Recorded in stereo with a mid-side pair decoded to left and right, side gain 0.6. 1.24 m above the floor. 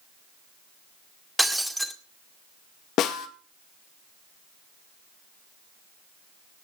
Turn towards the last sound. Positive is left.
turn(degrees=60)